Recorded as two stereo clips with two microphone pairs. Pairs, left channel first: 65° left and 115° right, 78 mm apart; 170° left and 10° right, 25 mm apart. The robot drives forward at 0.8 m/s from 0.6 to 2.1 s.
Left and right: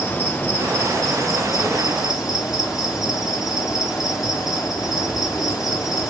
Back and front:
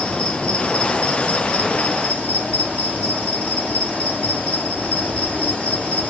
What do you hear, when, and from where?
0.0 s an insect: 130° left, 1.1 m; by 6.1 s 155° left, 2 m